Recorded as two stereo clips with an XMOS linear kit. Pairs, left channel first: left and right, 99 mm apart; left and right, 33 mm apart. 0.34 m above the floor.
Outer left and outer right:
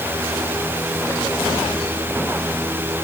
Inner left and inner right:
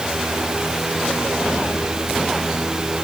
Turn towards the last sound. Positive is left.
No sound to turn to.